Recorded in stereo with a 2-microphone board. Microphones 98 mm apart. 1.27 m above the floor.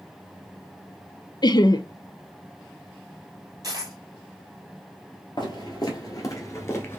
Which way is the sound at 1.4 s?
45° left (ahead or behind).